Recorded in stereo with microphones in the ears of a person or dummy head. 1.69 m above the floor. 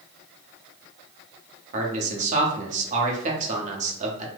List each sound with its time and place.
1.7 s a man speaking: 45° right (ahead or behind), 0.9 m